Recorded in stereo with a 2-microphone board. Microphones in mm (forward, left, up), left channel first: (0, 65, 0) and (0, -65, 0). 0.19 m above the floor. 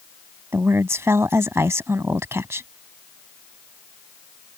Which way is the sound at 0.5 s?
20° right (ahead or behind).